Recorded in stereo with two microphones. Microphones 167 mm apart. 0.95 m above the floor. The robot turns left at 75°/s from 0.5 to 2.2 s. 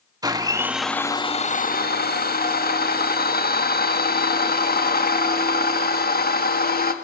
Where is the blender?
155° right, 1.8 m; by 6.9 s 75° left, 1.8 m.